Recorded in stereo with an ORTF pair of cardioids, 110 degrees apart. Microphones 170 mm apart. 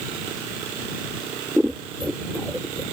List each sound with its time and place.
1.6 s scissors: 5° right